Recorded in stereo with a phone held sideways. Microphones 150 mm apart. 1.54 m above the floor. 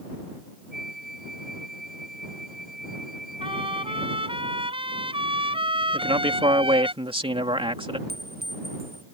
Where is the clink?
85° right.